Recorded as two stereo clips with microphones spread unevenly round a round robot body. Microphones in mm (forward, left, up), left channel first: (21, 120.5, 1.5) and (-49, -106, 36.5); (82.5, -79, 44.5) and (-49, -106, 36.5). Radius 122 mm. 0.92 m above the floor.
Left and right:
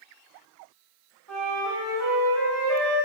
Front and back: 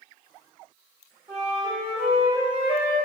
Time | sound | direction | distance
1.3 | a flute | 115° right | 2.0 m